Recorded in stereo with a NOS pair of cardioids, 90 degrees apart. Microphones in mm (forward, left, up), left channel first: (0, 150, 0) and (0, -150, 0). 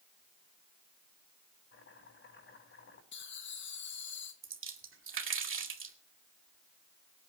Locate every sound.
1.7 s chopping: 40° left, 8 m
3.1 s laughter: 40° left, 0.6 m
4.4 s a splash: 40° right, 2.5 m